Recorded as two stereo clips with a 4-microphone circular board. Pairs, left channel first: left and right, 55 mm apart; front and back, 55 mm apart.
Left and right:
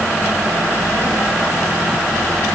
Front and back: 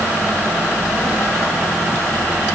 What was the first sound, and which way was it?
Only background noise.